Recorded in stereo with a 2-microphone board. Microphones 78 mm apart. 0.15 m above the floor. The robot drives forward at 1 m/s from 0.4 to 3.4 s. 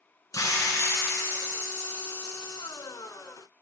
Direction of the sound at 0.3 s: 45° left (ahead or behind).